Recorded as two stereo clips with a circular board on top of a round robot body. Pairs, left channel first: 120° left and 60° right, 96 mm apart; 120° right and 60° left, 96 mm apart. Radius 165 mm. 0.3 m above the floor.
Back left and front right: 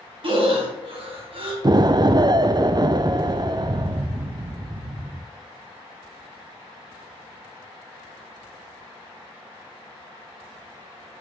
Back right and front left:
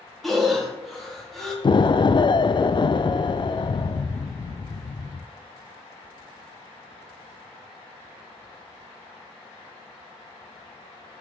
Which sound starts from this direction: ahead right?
Breathing, at 0.2 s.